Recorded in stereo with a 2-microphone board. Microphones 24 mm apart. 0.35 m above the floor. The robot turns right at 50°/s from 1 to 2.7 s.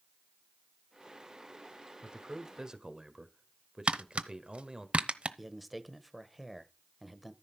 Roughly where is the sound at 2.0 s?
Right.